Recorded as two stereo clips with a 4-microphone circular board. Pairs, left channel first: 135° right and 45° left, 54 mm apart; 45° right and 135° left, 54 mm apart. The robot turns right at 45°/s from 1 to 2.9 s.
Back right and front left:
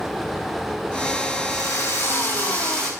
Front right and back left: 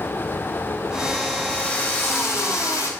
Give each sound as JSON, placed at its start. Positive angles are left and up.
{"t": 1.5, "sound": "a drill", "azimuth_deg": -115, "distance_m": 7.5}